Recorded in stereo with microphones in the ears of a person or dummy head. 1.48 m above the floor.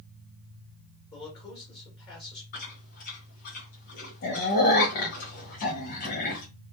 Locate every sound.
1.1 s a man speaking: 25° left (ahead or behind), 1.7 m
2.5 s chewing: 50° left (ahead or behind), 0.7 m